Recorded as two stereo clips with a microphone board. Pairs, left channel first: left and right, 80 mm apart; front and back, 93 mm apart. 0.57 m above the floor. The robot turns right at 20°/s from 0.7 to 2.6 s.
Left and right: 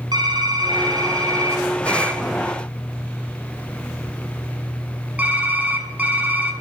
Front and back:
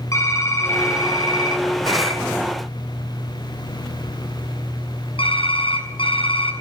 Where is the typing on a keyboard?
55° right, 5 m; by 6.5 s 20° right, 5 m.